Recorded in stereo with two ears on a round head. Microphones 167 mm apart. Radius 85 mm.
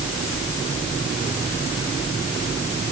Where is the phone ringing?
No phone ringing in this recording.